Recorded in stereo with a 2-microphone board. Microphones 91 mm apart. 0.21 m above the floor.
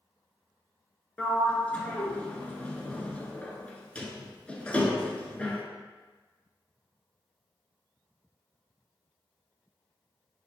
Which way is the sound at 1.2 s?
15° left (ahead or behind).